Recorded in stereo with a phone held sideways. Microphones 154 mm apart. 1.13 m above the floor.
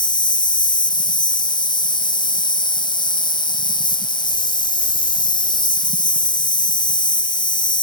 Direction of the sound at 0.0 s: 30° left (ahead or behind).